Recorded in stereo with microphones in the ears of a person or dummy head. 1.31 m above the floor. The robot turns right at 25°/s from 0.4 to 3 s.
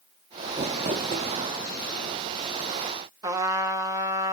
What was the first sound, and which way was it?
Crumpling, 25° right (ahead or behind).